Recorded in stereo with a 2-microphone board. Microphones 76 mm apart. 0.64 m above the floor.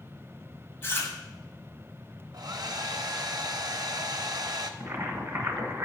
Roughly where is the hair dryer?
Right.